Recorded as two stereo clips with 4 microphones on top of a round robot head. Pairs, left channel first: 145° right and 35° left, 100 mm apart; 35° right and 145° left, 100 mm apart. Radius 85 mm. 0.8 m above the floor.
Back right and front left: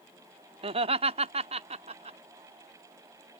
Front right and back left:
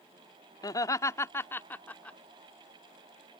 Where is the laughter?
15° left; by 2.2 s 40° left.